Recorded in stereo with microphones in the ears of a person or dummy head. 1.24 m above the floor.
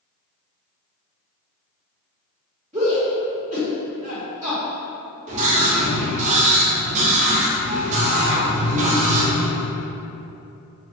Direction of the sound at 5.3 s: 40° right (ahead or behind).